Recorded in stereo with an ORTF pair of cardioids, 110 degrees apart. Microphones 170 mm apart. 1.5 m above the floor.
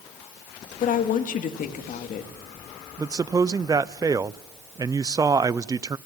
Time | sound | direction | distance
0.8 | a woman speaking | 50° left | 2 m
3.0 | a man speaking | 20° right | 0.5 m